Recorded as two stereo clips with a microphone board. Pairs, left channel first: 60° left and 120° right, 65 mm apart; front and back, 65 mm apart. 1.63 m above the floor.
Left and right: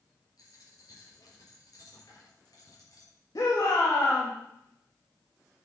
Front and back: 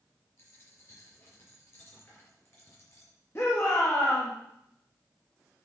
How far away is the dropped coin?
About 4.5 m.